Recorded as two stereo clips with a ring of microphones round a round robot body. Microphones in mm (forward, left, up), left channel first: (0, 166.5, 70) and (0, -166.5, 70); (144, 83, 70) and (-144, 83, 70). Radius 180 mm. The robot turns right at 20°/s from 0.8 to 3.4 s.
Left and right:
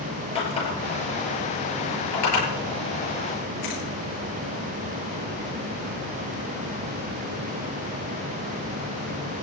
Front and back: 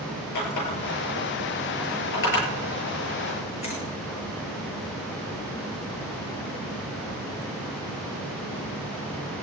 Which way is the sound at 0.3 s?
15° left.